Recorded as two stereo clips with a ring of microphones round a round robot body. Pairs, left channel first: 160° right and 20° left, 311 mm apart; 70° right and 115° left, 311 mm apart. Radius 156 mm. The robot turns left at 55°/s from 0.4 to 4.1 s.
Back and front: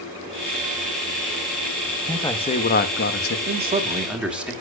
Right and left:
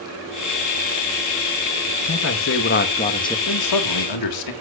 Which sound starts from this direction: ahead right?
A man speaking, at 3.5 s.